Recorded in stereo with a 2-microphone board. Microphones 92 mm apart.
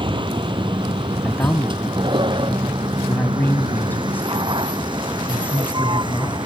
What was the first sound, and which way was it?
A vehicle, 60° right (ahead or behind).